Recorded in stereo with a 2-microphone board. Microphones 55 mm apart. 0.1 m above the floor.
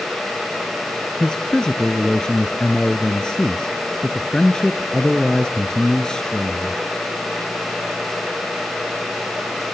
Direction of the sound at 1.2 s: 10° left (ahead or behind).